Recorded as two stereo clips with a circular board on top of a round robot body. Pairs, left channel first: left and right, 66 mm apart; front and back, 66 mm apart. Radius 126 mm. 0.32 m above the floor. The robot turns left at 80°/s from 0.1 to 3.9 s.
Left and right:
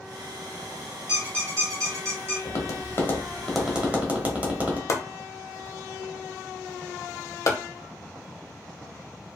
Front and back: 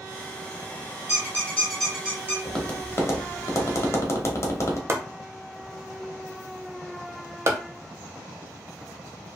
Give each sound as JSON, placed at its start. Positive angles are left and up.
{"t": 1.1, "sound": "a squeak", "azimuth_deg": -30, "distance_m": 1.3}
{"t": 2.5, "sound": "tapping", "azimuth_deg": 85, "distance_m": 1.0}
{"t": 4.9, "sound": "chopping", "azimuth_deg": 130, "distance_m": 0.5}